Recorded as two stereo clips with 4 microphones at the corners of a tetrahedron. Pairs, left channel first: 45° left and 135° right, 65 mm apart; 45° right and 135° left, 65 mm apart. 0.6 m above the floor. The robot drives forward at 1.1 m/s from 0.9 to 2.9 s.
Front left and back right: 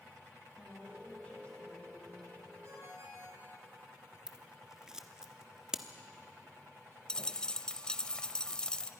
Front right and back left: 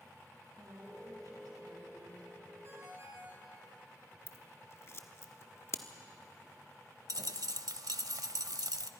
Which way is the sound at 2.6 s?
175° right.